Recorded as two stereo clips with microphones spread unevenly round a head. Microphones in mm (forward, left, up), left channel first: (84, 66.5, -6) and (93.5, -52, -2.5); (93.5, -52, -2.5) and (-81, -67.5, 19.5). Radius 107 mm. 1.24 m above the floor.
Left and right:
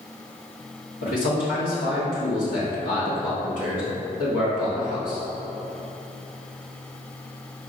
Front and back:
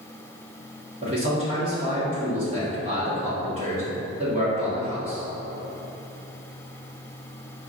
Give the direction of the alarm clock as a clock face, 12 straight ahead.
I don't hear an alarm clock.